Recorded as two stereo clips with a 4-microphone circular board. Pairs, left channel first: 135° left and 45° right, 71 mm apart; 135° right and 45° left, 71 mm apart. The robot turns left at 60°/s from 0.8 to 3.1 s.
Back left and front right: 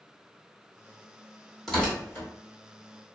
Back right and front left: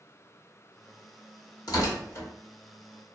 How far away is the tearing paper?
About 1.1 m.